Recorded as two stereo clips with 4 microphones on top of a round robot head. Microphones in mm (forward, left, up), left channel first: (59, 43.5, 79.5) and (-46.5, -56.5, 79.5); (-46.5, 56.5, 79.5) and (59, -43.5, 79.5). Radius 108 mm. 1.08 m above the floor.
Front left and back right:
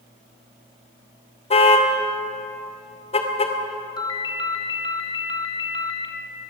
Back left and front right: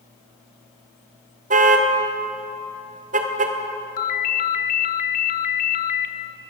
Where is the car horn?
5° right, 2 m.